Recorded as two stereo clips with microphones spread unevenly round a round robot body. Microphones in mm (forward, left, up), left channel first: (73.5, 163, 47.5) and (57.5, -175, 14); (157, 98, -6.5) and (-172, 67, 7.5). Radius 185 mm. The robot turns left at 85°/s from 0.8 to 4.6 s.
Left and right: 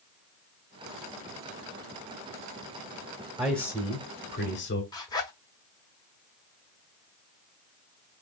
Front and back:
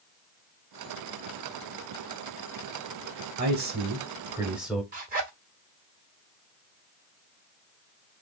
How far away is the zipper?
About 0.9 m.